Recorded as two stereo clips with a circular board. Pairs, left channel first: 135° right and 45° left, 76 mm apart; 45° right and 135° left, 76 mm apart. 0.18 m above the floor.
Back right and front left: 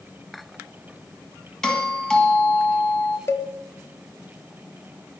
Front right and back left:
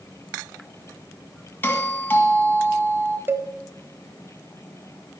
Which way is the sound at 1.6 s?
65° right.